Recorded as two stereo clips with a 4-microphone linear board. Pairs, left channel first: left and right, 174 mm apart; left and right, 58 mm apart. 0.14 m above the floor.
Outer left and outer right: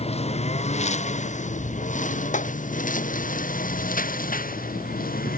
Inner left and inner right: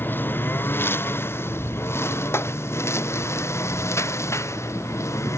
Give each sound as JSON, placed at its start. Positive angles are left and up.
{"t": 0.0, "sound": "a lawn mower", "side_deg": 35}
{"t": 2.3, "sound": "a clap", "side_deg": 45}